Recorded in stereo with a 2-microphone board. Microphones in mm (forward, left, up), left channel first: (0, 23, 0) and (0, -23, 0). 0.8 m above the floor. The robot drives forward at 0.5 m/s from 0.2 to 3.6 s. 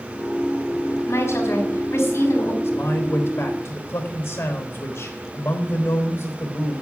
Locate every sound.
1.1 s a woman speaking: 75° left (ahead or behind), 5 m; by 2.5 s 70° left (ahead or behind), 5.5 m
2.6 s a man speaking: 70° left (ahead or behind), 3.5 m; by 6.8 s 60° left (ahead or behind), 3.5 m